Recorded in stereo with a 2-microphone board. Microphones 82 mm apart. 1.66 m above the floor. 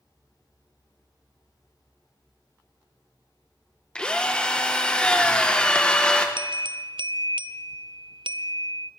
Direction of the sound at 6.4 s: 75° right (ahead or behind).